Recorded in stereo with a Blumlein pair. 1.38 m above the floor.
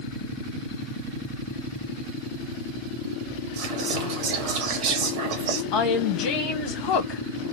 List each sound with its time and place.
3.6 s whispering: 55° right, 0.8 m
5.7 s a woman speaking: 40° left, 1.1 m